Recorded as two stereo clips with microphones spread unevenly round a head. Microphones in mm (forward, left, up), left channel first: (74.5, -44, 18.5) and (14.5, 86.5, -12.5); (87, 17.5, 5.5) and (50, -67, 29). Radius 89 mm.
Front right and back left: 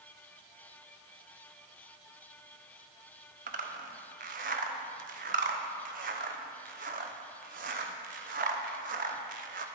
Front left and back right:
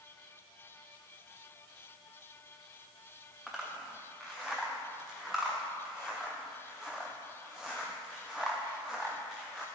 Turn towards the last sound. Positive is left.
turn(degrees=165)